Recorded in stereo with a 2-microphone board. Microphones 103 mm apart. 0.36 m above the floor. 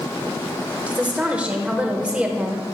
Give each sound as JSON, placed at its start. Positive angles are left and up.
{"t": 0.9, "sound": "a woman speaking", "side_deg": -15, "distance_m": 0.9}